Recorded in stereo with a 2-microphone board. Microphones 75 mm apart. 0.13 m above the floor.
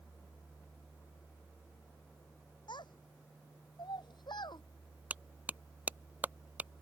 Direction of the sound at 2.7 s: 80° left.